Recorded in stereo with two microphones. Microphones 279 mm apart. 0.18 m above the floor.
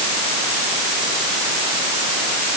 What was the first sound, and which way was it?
Only background noise.